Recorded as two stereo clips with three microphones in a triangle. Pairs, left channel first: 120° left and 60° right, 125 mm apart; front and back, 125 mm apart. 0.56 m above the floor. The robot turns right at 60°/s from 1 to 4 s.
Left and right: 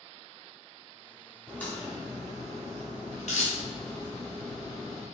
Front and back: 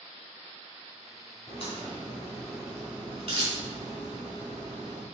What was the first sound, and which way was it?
A crack, 35° left.